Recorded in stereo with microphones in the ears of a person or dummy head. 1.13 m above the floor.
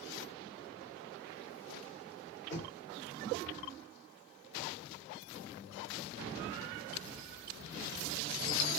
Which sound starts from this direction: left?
Knocking, at 2.5 s.